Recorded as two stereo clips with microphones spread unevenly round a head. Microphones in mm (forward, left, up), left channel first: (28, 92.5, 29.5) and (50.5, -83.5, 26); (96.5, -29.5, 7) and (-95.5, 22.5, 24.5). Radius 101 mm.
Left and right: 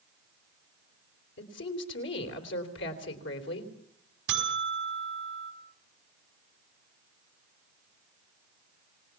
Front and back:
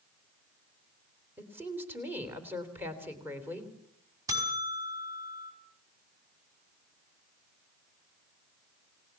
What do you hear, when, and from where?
1.4 s a woman speaking: 85° left, 3.5 m
4.3 s a buzzer: 120° right, 5 m